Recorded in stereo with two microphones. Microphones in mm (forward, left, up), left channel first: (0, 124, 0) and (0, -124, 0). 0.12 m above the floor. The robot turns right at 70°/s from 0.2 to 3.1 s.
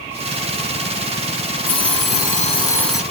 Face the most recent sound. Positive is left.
turn(degrees=-170)